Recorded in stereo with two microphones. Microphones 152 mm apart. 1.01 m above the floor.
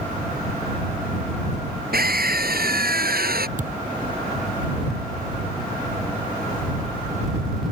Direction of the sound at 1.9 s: 80° right.